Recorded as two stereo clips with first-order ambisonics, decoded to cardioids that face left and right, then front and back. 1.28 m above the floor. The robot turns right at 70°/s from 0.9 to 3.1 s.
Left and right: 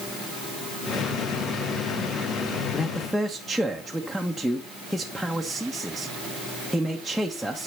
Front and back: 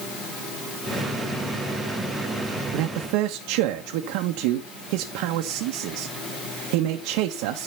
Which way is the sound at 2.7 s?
155° left.